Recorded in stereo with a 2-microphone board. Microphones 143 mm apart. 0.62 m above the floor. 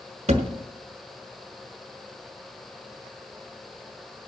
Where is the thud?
50° right (ahead or behind), 1.1 m.